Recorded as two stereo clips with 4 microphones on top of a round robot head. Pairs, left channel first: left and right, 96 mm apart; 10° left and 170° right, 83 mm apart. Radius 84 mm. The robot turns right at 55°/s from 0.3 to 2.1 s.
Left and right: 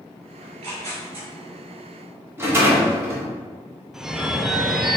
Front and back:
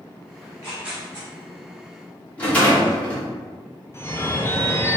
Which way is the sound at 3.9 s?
5° right.